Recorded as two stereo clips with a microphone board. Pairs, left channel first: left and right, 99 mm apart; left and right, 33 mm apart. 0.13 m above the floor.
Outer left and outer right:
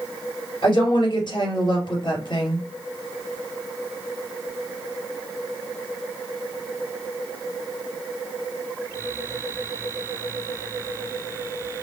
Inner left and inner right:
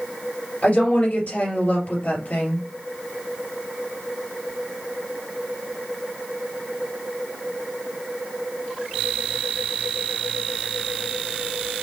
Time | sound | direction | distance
0.6 | a woman speaking | 55° left (ahead or behind) | 2.5 m